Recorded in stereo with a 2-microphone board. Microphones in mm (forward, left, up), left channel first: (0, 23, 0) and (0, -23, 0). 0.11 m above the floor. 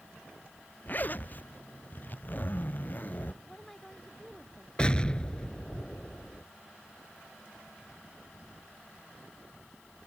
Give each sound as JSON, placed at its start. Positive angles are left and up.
{"t": 0.9, "sound": "a zipper", "side_deg": 45}
{"t": 3.4, "sound": "a woman speaking", "side_deg": 5}
{"t": 4.8, "sound": "an explosion", "side_deg": 25}